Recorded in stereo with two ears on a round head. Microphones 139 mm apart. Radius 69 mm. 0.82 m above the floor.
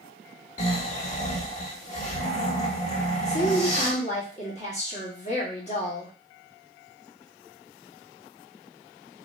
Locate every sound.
0.6 s snoring: 45° left (ahead or behind), 1.4 m
3.2 s a woman speaking: 45° left (ahead or behind), 1.6 m